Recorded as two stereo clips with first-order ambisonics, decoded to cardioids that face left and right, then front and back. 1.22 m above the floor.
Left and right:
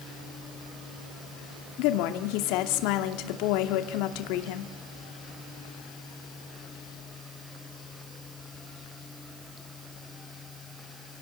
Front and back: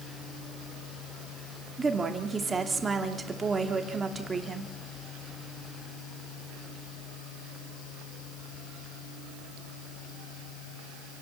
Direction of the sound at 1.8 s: 105° left.